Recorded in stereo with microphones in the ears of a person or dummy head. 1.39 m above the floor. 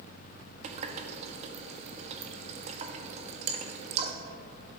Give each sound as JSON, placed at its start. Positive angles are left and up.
{"t": 0.6, "sound": "a running tap", "side_deg": -40, "distance_m": 1.2}